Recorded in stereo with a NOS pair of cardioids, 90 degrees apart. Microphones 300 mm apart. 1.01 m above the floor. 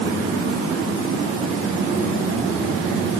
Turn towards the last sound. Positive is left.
No sound to turn to.